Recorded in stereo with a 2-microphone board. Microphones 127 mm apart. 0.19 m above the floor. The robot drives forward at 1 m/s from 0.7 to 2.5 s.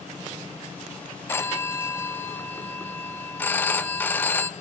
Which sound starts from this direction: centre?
A phone ringing, at 1.3 s.